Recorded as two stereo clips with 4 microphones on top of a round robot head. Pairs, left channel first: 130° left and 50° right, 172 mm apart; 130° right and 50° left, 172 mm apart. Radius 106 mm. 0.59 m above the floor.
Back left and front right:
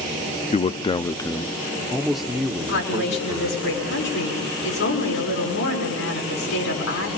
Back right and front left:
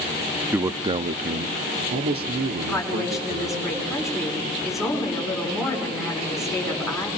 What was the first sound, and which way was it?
A man speaking, 120° left.